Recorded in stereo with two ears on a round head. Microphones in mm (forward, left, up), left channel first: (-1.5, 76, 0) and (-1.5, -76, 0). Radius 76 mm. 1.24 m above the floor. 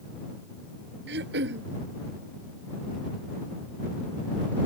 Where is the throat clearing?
70° right (ahead or behind).